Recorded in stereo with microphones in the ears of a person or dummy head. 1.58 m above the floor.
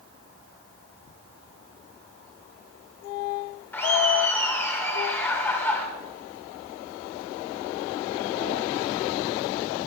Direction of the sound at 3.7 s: 15° left (ahead or behind).